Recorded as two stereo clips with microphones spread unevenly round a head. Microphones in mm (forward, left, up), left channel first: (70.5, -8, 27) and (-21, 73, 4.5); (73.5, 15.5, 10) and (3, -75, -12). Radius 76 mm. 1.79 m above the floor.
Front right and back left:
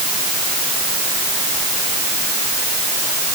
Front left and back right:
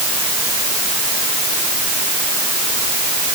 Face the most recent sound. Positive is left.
No sound to turn to.